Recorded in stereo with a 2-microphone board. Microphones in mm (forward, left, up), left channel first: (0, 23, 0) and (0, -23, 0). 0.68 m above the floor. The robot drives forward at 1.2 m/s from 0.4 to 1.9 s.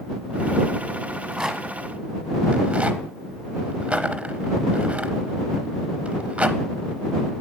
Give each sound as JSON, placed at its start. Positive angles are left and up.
{"t": 1.1, "sound": "a rattle", "side_deg": -10, "distance_m": 1.3}